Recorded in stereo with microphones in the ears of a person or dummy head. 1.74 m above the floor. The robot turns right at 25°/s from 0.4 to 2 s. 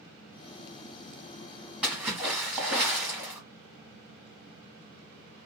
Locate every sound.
1.8 s a splash: 5° right (ahead or behind), 0.9 m; by 3.4 s 10° right (ahead or behind), 0.9 m